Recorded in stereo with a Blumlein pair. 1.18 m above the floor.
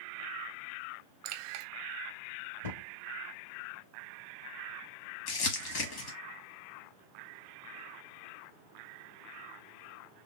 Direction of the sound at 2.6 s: 70° left.